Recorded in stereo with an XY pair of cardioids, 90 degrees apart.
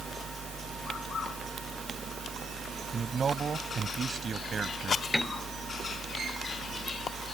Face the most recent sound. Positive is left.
turn(degrees=10)